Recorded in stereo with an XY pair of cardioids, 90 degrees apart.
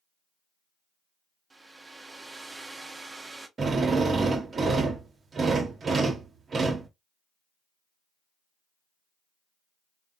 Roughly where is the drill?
Ahead right.